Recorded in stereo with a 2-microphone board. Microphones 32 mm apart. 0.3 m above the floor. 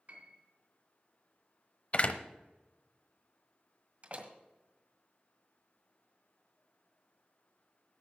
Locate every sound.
0.1 s a piano: 50° right (ahead or behind), 3 m
1.9 s a door slam: 45° left (ahead or behind), 0.9 m
4.0 s a door slam: 40° right (ahead or behind), 1.6 m